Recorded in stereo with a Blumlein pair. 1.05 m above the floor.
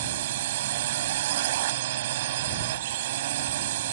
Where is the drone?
55° right.